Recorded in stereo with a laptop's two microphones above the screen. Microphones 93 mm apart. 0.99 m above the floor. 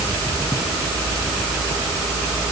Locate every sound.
Only background noise.